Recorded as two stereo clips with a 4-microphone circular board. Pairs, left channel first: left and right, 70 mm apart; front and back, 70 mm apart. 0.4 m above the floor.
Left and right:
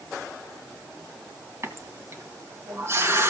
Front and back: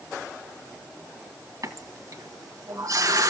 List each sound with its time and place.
1.6 s a running tap: 140° right, 1.9 m